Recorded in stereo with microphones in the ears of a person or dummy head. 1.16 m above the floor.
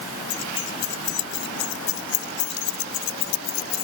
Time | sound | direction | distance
0.3 | keys jangling | 65° left (ahead or behind) | ?